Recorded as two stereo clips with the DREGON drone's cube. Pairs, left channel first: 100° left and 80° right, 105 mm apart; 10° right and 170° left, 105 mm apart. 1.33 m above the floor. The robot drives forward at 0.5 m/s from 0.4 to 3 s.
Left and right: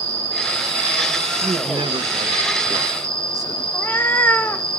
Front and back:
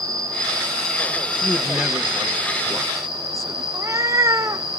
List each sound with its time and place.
0.0 s an insect: 120° left, 3.5 m; by 4.8 s 135° left, 4.5 m
1.4 s a man speaking: 100° right, 1.2 m; by 3.6 s 130° right, 1.6 m
3.7 s a cat meowing: 155° left, 0.6 m